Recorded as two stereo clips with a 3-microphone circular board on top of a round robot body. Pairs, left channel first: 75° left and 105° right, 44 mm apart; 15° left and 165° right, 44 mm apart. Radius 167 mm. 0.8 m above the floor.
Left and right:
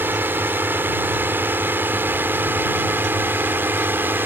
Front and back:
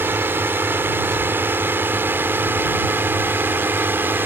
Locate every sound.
0.0 s a drone: 135° right